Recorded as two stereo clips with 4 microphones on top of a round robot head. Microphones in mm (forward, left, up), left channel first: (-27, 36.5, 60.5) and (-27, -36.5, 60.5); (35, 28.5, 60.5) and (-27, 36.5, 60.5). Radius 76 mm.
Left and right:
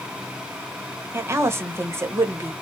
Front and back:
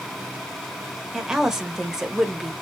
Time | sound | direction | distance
1.1 | a woman speaking | 110° right | 1.0 m